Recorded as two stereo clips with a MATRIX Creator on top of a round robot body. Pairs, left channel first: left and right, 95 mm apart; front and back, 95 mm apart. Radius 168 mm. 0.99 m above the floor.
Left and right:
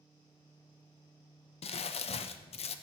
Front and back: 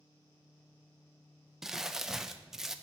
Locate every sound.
1.6 s crumpling: 95° left, 0.5 m